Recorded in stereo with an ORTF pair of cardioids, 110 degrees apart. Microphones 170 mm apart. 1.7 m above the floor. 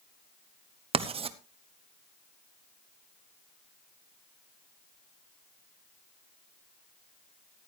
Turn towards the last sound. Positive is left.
turn(degrees=-35)